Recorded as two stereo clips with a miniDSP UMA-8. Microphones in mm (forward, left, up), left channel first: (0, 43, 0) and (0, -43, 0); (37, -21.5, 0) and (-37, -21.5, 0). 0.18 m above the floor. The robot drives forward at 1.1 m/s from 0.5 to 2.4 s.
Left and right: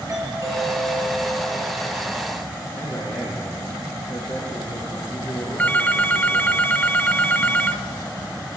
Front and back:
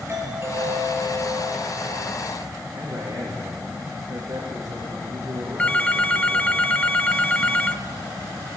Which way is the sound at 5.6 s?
45° left.